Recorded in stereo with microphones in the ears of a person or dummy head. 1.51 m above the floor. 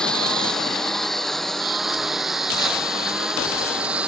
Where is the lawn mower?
5° left (ahead or behind); by 4.1 s 5° right (ahead or behind).